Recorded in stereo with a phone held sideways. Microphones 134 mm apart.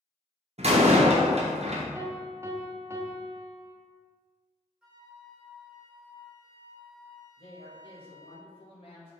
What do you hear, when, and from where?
0.6 s a door slam: 50° right (ahead or behind), 0.7 m
1.9 s a piano: 20° right (ahead or behind), 0.5 m
4.8 s a flute: 5° right (ahead or behind), 0.7 m
7.4 s a woman speaking: 45° left (ahead or behind), 1.2 m